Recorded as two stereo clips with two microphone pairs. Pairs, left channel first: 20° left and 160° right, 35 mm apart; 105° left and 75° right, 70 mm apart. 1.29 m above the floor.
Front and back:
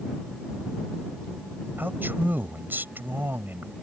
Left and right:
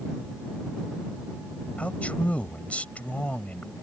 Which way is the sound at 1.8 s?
Straight behind.